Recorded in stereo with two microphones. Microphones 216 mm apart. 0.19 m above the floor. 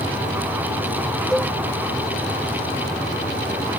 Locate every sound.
1.3 s a cowbell: 5° left (ahead or behind)